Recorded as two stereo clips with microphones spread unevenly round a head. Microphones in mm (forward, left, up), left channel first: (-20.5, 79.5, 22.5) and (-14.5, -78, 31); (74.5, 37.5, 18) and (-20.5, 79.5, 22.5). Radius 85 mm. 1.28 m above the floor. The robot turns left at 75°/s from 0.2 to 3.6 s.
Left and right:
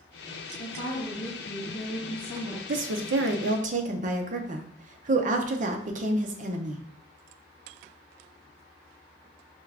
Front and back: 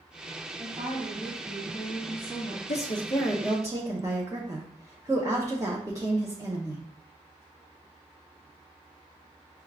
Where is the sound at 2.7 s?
60° right, 0.7 m; by 6.8 s 130° right, 0.7 m.